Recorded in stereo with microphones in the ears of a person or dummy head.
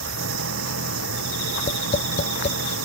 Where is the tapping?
40° left (ahead or behind).